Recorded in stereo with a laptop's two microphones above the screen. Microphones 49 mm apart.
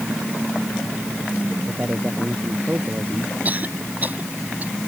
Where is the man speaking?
30° right (ahead or behind).